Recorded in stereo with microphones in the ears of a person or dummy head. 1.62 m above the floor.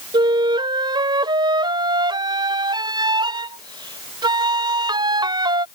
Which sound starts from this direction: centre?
A flute, at 0.1 s.